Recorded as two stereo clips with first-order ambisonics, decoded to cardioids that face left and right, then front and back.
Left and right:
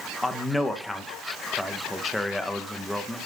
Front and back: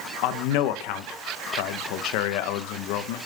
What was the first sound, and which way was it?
A man speaking, 5° left.